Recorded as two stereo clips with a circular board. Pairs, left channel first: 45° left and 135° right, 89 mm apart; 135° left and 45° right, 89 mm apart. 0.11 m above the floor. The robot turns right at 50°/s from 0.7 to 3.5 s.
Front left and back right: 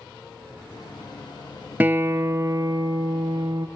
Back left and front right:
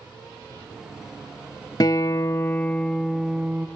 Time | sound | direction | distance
1.8 | a guitar | 160° left | 0.6 m